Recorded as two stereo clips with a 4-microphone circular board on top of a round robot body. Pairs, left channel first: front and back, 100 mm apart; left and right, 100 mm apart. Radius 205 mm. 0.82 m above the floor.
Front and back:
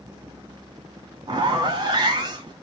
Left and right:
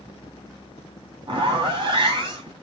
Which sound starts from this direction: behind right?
A zipper, at 1.3 s.